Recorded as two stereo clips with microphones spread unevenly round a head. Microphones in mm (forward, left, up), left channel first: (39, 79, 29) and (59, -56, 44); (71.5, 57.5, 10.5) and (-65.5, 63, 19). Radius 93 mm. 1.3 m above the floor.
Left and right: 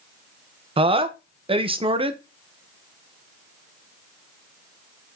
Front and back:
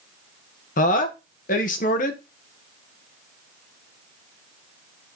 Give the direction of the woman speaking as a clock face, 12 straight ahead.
1 o'clock.